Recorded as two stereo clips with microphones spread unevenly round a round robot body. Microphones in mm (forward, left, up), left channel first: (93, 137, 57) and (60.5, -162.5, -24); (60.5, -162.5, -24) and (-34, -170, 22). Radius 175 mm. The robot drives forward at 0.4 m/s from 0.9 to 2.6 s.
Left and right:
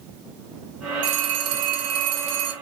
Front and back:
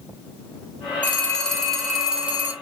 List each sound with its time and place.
1.0 s a phone ringing: 75° right, 1.1 m; by 2.5 s 105° right, 1.1 m